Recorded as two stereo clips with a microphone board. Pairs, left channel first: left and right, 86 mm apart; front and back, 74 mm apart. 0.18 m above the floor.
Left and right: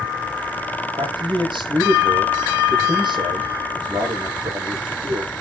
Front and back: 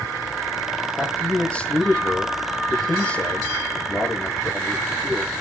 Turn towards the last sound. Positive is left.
turn(degrees=-70)